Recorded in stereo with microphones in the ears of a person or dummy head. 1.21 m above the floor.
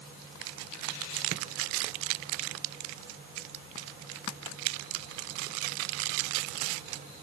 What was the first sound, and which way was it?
Only background noise.